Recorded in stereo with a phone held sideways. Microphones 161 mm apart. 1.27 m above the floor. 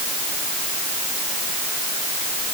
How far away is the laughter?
No laughter in this recording.